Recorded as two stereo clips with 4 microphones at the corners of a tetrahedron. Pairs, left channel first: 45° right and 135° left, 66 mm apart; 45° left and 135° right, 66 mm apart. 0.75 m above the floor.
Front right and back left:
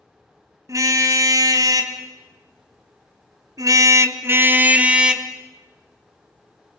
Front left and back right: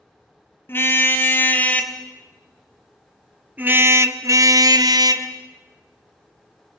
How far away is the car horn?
About 3 m.